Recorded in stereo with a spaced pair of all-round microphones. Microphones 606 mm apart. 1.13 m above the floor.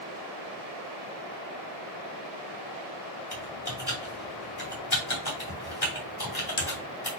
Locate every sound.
3.3 s typing on a keyboard: 40° left (ahead or behind), 2 m